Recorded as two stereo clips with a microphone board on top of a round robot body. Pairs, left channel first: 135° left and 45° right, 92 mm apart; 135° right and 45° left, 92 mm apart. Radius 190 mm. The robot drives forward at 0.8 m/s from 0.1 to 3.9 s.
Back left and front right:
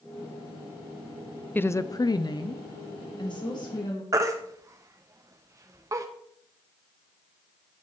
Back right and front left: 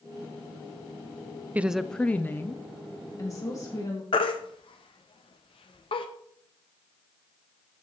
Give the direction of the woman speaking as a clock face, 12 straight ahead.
9 o'clock.